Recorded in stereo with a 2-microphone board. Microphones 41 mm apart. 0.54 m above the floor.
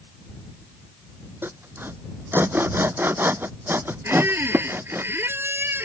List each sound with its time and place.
1.4 s sawing: 60° right (ahead or behind)
4.0 s a squeak: 70° right (ahead or behind)